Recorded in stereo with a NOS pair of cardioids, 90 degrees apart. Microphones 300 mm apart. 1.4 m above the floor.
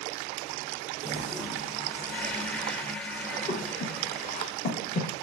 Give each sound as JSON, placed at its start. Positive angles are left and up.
{"t": 1.0, "sound": "a toilet flushing", "azimuth_deg": 5, "distance_m": 0.5}
{"t": 3.5, "sound": "breathing", "azimuth_deg": 25, "distance_m": 0.7}